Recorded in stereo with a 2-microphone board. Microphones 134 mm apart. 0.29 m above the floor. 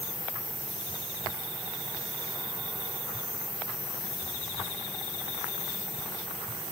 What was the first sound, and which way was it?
Only background noise.